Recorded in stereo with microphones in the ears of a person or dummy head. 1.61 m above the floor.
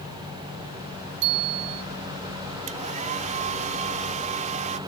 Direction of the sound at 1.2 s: 60° right (ahead or behind).